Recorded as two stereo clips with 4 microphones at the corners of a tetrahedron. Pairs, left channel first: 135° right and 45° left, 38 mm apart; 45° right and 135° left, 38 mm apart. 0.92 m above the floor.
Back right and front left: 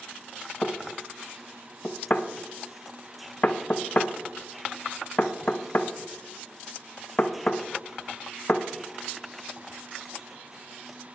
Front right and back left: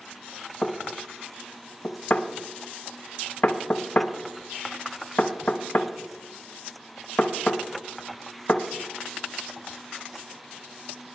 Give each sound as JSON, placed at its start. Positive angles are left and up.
{"t": 0.6, "sound": "knocking", "azimuth_deg": -85, "distance_m": 0.6}